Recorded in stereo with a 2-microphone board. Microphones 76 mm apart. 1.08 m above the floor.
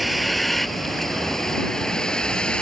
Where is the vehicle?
Centre (ahead or behind); by 2.6 s 10° left (ahead or behind).